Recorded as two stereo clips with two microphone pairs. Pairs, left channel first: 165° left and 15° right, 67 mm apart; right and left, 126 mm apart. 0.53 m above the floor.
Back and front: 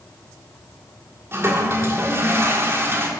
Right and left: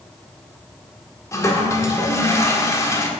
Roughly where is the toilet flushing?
Ahead right.